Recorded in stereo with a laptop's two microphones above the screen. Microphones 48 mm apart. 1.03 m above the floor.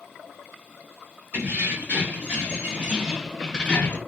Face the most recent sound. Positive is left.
turn(degrees=45)  # may be behind; listen again after turning